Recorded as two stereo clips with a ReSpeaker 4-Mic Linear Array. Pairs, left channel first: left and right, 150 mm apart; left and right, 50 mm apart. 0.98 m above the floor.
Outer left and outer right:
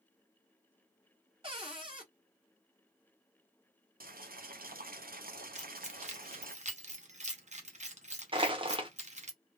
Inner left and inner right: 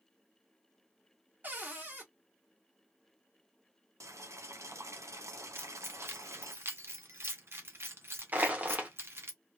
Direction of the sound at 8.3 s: 35° right (ahead or behind).